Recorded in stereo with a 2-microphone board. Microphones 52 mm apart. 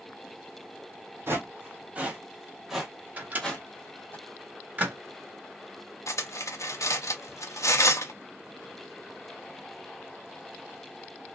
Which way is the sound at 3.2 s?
30° right (ahead or behind).